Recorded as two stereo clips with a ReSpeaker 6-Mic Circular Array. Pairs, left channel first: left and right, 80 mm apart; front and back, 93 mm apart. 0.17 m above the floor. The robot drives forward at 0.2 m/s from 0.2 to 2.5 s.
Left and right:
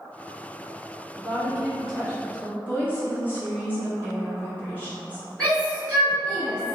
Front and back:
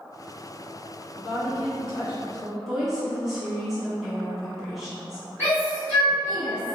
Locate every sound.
1.2 s a woman speaking: 105° left, 1.5 m; by 2.6 s 120° left, 1.5 m
2.7 s a woman speaking: 90° left, 1.3 m
5.4 s a shout: 150° left, 1.6 m